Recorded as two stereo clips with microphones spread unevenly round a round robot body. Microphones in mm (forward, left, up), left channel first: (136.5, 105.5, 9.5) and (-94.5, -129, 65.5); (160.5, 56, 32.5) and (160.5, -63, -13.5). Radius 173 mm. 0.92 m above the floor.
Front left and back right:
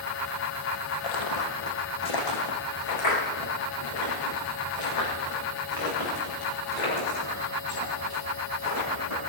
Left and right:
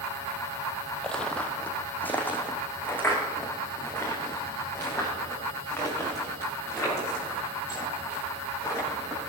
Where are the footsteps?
15° left, 2 m; by 9.2 s 20° left, 14 m.